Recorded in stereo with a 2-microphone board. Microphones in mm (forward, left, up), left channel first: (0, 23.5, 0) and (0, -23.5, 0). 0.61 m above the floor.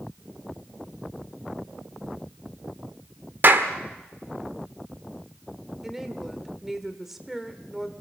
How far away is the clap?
About 1.5 m.